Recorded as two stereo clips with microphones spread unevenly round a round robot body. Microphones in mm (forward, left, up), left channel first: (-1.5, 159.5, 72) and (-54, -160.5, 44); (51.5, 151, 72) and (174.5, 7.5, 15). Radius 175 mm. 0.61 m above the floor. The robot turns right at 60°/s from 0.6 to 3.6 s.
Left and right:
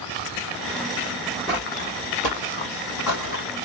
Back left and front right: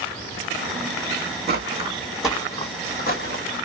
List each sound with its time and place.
1.5 s footsteps: 10° right, 2.0 m; by 3.5 s 140° left, 1.3 m